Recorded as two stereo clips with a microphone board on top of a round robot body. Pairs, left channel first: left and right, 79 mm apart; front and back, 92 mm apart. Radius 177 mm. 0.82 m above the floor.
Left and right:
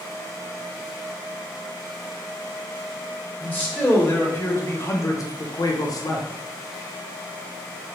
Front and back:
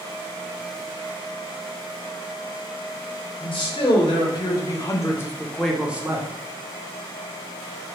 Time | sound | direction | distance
3.4 | a man speaking | 20° left | 1.6 m